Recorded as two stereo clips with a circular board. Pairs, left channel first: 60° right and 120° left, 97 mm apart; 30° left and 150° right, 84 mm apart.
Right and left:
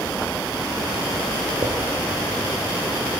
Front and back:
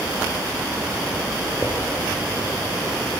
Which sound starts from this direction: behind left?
A drawer, at 1.6 s.